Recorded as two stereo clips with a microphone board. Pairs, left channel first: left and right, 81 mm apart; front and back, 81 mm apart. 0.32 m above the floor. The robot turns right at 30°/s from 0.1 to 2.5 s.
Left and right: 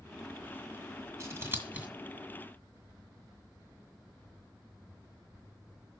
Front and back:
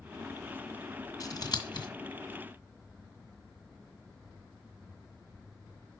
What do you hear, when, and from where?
1.2 s scissors: 40° right, 1.8 m; by 1.9 s 20° right, 1.8 m